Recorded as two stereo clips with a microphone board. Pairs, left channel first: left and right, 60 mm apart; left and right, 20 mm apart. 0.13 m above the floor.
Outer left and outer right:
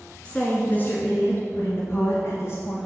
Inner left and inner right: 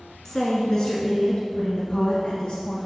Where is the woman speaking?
20° left (ahead or behind), 1.1 m; by 2.8 s 55° left (ahead or behind), 2.5 m.